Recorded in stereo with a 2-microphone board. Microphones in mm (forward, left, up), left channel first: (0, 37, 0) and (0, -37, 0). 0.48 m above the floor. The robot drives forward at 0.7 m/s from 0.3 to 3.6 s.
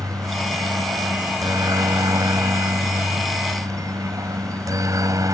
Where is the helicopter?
50° right (ahead or behind).